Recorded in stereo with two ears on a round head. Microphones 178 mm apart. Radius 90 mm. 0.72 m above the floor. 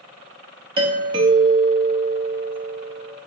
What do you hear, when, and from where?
0.8 s a doorbell: 25° right (ahead or behind), 1.2 m